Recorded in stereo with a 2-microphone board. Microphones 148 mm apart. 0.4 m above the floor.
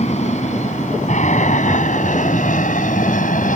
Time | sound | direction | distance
0.0 | an aircraft | 50° left (ahead or behind) | ?